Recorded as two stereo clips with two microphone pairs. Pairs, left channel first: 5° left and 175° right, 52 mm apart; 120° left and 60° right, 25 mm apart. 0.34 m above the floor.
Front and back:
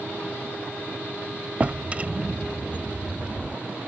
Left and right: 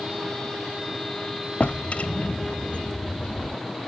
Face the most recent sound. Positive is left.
turn(degrees=125)